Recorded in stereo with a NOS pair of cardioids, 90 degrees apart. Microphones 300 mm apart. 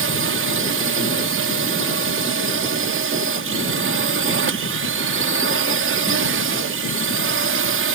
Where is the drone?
45° right.